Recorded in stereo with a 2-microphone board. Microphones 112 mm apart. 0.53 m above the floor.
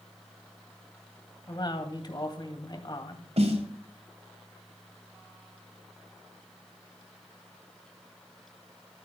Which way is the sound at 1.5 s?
40° left (ahead or behind).